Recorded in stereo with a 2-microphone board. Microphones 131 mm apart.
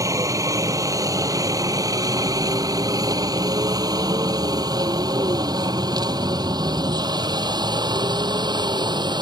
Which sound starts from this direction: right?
A helicopter, at 0.0 s.